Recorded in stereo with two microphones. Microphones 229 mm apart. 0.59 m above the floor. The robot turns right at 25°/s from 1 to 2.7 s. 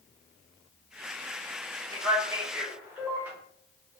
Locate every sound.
1.9 s a man speaking: 20° right (ahead or behind), 1.2 m; by 3.3 s 5° right (ahead or behind), 1.2 m